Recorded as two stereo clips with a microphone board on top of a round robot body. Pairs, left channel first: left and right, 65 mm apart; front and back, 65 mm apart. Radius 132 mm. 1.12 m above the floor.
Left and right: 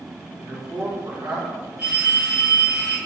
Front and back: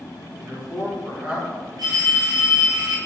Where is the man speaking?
105° right, 1.9 m.